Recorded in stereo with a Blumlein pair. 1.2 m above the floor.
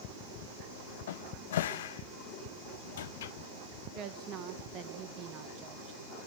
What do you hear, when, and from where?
1.1 s a cupboard door: 60° left, 0.7 m
4.0 s a woman speaking: 35° right, 1.5 m